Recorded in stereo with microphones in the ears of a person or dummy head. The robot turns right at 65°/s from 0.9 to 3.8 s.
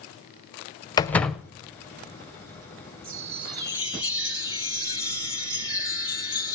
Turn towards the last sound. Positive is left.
turn(degrees=25)